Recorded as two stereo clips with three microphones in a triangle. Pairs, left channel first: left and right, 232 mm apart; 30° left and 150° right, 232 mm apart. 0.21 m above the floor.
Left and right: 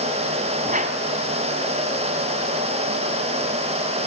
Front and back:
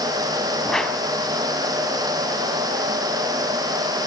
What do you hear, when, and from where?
0.6 s a whoosh: 55° right, 1.8 m